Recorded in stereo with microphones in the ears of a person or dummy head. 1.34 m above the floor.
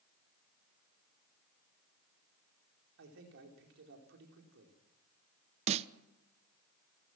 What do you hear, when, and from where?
3.0 s a man speaking: 65° right (ahead or behind), 4.5 m
5.7 s a snare drum: 35° right (ahead or behind), 0.8 m